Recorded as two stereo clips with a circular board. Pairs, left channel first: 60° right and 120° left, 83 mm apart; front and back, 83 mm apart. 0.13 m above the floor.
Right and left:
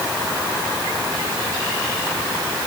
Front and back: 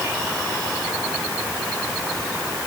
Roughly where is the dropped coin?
I don't hear a dropped coin.